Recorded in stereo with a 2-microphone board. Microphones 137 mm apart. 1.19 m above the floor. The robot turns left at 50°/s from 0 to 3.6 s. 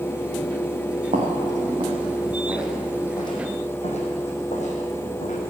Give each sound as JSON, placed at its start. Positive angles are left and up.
{"t": 1.1, "sound": "footsteps", "side_deg": -70, "distance_m": 3.5}